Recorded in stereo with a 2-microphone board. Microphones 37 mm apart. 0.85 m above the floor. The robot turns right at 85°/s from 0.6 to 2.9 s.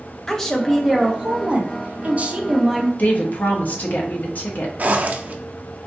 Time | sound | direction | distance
0.3 | a woman speaking | 165° left | 0.8 m
3.0 | a woman speaking | 50° left (ahead or behind) | 1.0 m
4.8 | a zipper | 50° right (ahead or behind) | 0.6 m